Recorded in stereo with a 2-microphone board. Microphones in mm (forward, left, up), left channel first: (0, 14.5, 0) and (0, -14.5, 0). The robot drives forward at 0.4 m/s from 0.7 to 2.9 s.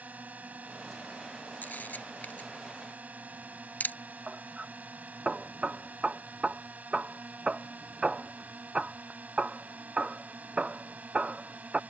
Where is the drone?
65° right (ahead or behind).